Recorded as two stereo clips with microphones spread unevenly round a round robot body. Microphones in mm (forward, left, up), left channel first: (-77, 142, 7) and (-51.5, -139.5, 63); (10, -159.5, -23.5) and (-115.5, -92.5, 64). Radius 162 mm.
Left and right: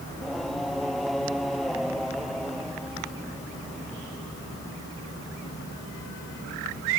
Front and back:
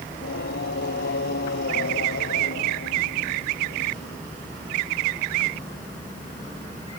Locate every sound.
0.1 s singing: 5° left